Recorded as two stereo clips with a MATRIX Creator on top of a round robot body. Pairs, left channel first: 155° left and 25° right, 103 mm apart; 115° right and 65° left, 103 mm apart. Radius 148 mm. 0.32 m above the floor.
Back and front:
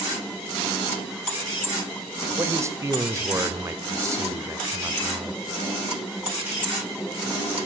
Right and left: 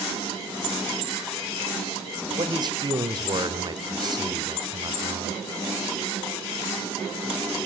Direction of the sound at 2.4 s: 35° left.